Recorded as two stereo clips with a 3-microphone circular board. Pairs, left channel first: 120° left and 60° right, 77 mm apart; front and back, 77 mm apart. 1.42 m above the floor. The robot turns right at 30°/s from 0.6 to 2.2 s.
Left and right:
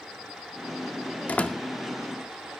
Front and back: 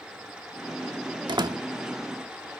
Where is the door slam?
170° right, 2 m; by 1.6 s 160° right, 2 m.